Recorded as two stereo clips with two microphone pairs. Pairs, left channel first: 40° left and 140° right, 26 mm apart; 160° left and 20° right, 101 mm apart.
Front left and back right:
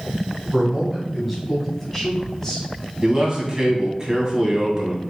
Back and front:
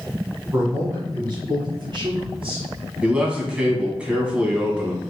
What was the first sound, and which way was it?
A man speaking, 75° right.